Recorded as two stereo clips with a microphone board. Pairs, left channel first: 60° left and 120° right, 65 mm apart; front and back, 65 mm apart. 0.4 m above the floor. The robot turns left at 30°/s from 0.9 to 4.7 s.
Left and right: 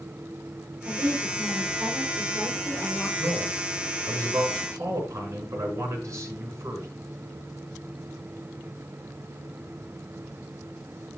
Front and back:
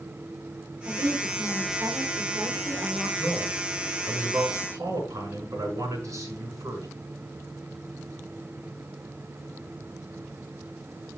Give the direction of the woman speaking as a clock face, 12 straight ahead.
5 o'clock.